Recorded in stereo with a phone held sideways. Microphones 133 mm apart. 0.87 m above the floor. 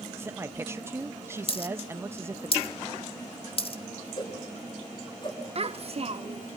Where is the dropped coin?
45° left (ahead or behind), 1.0 m.